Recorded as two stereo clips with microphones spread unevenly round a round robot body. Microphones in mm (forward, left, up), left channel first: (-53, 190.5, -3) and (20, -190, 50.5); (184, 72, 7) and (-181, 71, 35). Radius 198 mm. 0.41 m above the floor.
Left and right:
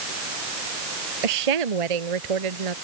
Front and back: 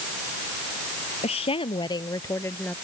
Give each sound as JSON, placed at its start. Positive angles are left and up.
{"t": 1.2, "sound": "a woman speaking", "azimuth_deg": -75}